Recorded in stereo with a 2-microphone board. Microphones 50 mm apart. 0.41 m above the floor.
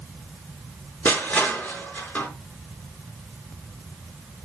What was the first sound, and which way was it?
Crushing, 40° left (ahead or behind).